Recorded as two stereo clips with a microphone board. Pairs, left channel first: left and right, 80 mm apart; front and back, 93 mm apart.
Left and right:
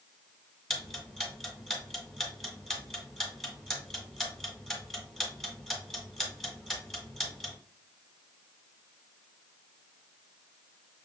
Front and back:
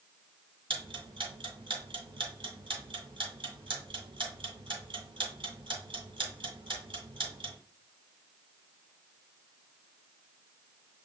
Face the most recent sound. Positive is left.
turn(degrees=180)